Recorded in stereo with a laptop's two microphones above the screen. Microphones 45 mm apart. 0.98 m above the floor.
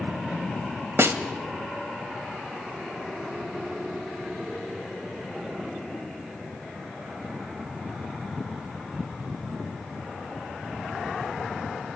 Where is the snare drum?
65° right (ahead or behind), 1.5 m.